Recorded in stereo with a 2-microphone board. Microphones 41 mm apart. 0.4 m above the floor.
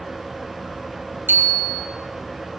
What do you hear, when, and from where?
1.3 s a bicycle bell: 60° right (ahead or behind), 3.5 m